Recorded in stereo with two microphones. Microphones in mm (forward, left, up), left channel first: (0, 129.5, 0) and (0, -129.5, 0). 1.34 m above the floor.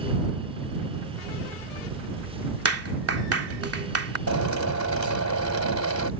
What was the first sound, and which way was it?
A clap, 60° right (ahead or behind).